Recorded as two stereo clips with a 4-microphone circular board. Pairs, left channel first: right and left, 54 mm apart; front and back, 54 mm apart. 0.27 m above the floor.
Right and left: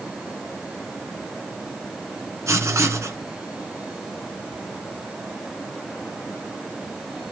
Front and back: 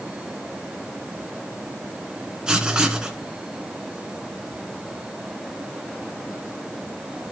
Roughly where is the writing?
Left.